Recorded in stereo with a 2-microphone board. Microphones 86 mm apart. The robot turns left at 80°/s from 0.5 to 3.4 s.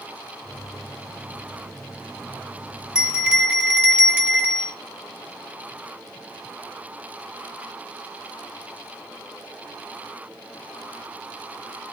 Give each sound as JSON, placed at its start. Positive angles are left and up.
{"t": 3.0, "sound": "a bell", "side_deg": -5, "distance_m": 1.3}